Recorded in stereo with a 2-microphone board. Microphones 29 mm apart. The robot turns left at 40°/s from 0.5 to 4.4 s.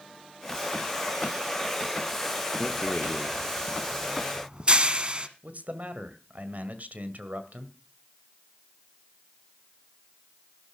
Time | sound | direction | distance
2.6 | a rattle | 35° left (ahead or behind) | 1.0 m
5.4 | a man speaking | 60° right (ahead or behind) | 1.8 m